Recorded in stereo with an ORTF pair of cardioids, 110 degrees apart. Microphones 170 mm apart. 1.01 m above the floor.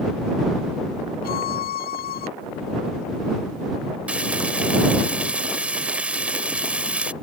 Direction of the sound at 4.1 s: 5° right.